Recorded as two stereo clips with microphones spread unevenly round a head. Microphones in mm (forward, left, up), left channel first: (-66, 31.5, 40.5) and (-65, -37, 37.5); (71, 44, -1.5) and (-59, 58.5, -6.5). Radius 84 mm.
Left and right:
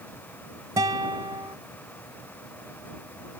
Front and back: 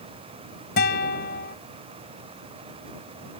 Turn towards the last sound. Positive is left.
turn(degrees=-30)